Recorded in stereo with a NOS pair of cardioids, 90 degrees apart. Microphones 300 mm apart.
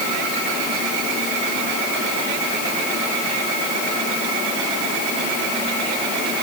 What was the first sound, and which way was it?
Only background noise.